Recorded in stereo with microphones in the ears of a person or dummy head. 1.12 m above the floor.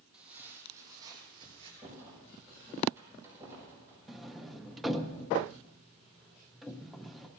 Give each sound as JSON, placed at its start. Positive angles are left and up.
{"t": 0.1, "sound": "footsteps", "side_deg": -5, "distance_m": 2.5}
{"t": 1.8, "sound": "a rattle", "side_deg": -10, "distance_m": 6.5}
{"t": 4.1, "sound": "a sliding door", "side_deg": 0, "distance_m": 0.6}